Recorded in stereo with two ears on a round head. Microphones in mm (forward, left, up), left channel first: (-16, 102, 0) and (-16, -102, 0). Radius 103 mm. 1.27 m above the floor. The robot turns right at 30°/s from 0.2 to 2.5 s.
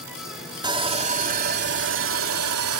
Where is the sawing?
160° right; by 2.8 s 105° right.